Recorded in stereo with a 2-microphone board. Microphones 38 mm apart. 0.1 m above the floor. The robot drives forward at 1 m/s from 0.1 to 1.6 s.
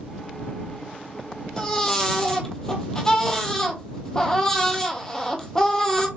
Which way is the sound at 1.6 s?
15° left (ahead or behind).